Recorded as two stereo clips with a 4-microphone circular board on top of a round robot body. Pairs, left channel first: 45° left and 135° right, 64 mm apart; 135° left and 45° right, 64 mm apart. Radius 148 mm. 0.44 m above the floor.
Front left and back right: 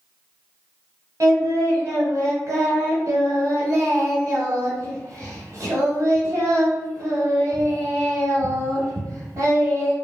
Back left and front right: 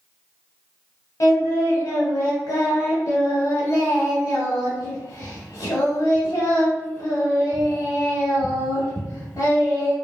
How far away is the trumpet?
I don't hear a trumpet.